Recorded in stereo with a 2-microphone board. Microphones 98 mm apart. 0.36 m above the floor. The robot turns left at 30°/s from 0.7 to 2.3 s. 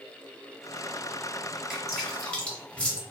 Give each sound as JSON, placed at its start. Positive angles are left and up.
{"t": 1.7, "sound": "dripping", "side_deg": -5, "distance_m": 1.0}